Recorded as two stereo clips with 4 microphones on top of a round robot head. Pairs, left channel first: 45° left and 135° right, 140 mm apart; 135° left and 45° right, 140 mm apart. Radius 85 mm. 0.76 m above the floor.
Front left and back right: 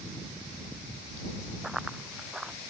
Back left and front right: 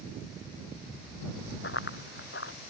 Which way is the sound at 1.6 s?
135° left.